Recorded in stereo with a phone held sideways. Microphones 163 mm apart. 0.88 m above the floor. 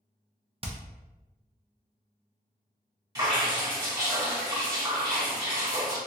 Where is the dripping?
25° right (ahead or behind), 2.0 m.